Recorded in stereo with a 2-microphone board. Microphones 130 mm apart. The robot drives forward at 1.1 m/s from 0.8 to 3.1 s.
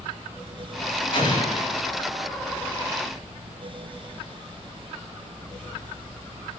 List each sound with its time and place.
1.1 s an explosion: 40° left (ahead or behind), 8.5 m